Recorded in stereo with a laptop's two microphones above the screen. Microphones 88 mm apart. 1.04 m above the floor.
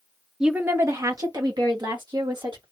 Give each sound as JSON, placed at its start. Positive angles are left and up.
{"t": 0.4, "sound": "a woman speaking", "side_deg": -10, "distance_m": 0.6}